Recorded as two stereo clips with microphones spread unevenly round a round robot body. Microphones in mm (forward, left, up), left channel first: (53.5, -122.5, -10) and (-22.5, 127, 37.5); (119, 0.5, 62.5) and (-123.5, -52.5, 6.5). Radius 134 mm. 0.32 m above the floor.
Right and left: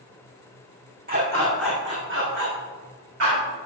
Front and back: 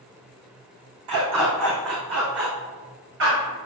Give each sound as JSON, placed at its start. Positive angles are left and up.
{"t": 1.1, "sound": "a dog barking", "azimuth_deg": 165, "distance_m": 4.5}